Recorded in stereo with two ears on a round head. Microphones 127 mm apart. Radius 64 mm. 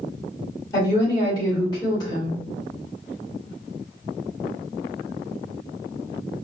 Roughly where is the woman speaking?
Left.